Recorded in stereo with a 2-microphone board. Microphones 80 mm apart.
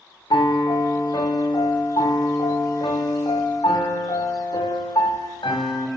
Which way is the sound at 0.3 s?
75° left (ahead or behind).